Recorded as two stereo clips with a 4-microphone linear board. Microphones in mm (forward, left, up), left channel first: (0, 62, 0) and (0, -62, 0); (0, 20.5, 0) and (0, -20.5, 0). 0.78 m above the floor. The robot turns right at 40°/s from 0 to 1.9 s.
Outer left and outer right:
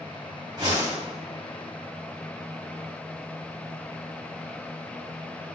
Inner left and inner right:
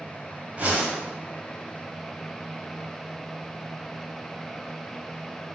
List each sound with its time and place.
0.6 s a whoosh: 35° right (ahead or behind), 3 m; by 1.0 s 50° right (ahead or behind), 3 m